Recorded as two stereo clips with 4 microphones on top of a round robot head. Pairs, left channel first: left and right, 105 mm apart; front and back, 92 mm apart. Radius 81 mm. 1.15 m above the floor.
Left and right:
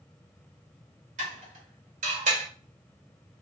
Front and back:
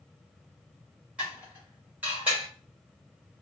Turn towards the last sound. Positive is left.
turn(degrees=-100)